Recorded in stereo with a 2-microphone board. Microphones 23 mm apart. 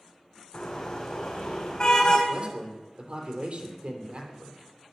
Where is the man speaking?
60° right (ahead or behind), 3.5 m.